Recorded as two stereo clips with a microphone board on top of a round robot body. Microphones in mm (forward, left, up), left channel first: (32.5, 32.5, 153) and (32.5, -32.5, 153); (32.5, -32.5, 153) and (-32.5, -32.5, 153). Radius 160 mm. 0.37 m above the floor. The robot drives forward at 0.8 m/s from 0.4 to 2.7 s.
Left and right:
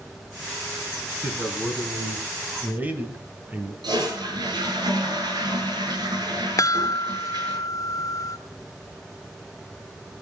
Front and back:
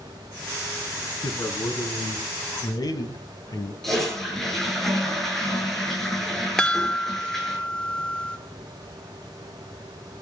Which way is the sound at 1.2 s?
15° right.